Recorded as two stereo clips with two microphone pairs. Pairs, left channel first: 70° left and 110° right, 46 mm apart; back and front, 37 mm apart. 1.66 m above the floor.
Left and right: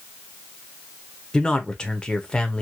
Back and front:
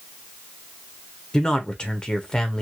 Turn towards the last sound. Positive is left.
turn(degrees=130)